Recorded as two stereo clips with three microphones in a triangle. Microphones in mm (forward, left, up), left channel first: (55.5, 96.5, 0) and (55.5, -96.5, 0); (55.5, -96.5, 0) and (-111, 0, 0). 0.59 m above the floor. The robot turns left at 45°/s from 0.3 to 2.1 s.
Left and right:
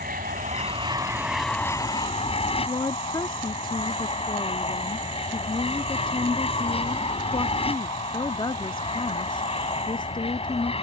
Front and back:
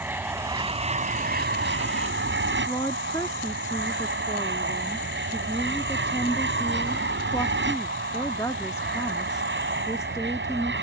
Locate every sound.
0.0 s an aircraft: 130° right; by 10.8 s 150° left
2.7 s a woman speaking: 35° left